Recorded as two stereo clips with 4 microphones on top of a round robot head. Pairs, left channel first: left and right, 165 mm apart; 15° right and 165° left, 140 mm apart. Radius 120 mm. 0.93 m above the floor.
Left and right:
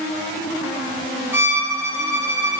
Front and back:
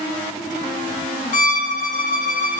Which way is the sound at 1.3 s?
15° right.